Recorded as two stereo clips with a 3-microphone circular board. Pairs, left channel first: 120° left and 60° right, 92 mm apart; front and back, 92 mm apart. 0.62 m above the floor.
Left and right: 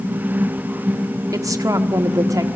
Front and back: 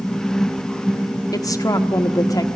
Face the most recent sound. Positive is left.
turn(degrees=-25)